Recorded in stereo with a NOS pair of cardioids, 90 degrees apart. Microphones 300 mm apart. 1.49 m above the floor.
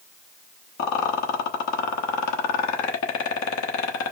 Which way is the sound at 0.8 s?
65° left.